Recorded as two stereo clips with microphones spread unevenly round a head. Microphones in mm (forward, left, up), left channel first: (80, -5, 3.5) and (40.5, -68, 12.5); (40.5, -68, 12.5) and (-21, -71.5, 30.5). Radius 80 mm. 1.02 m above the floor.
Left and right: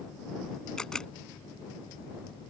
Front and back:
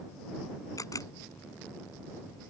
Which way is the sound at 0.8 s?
25° right.